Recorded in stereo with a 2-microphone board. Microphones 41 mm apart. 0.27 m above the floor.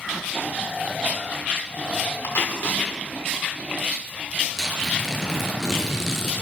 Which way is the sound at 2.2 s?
60° left (ahead or behind).